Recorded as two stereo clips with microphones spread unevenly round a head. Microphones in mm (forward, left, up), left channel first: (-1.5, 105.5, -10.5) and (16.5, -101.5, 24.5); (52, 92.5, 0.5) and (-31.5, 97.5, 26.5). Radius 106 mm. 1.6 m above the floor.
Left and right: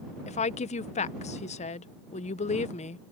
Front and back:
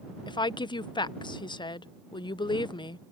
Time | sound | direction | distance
0.3 | a woman speaking | 35° left | ?